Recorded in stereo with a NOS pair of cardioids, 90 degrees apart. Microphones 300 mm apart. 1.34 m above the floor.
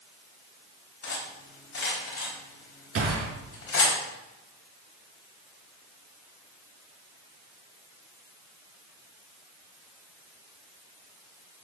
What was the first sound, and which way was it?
Cutlery clinking, 45° left.